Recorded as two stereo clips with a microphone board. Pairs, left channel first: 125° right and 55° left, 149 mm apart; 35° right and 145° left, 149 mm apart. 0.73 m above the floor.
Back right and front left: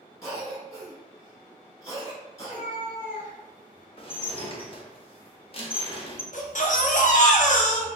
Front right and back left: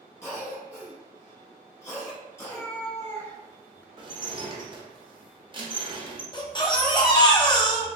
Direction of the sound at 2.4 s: 105° right.